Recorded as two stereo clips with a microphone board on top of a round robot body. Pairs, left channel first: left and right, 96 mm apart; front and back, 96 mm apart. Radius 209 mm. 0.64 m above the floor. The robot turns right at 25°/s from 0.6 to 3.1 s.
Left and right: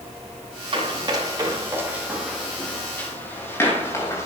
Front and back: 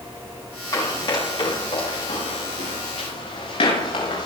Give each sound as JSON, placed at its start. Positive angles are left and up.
{"t": 0.7, "sound": "running footsteps", "azimuth_deg": -55, "distance_m": 8.0}